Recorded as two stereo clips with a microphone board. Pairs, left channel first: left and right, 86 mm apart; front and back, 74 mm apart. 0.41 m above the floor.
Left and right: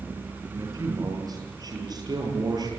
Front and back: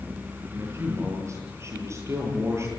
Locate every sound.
0.5 s a man speaking: 135° right, 9.5 m; by 2.7 s 130° right, 11.5 m